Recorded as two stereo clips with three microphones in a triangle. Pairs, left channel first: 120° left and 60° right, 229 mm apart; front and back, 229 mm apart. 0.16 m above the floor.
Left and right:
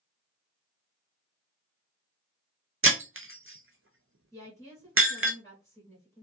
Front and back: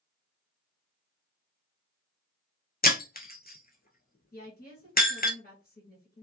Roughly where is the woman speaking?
Ahead left.